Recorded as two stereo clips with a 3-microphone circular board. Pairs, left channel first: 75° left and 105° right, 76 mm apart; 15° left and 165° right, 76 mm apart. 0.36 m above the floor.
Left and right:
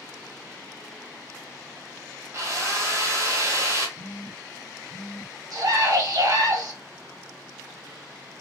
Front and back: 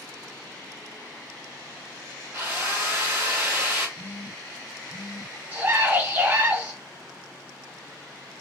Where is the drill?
125° right, 1.6 m.